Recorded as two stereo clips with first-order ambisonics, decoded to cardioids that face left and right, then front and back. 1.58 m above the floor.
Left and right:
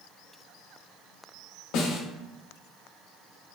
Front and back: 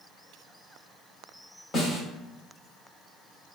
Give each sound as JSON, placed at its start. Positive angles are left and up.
{"t": 1.7, "sound": "a snare drum", "azimuth_deg": 65, "distance_m": 0.8}